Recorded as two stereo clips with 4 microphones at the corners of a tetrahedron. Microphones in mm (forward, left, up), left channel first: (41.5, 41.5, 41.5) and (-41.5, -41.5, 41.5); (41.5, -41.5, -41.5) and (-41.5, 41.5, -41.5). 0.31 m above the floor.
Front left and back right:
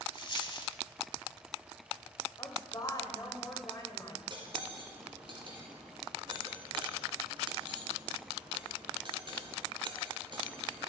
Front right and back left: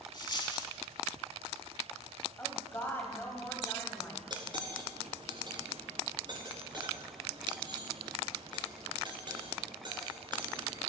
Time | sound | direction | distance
0.1 | a dropped coin | straight ahead | 0.9 m
2.4 | a woman speaking | 15° left | 1.6 m
4.3 | cutlery clinking | 175° right | 2 m